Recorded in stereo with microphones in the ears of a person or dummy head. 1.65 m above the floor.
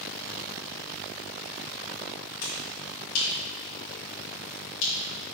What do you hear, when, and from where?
2.4 s a finger snap: 70° left (ahead or behind), 4 m